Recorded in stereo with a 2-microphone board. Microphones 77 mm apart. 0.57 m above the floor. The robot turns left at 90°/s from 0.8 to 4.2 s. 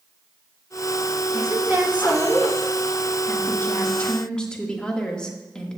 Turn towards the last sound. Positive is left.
turn(degrees=20)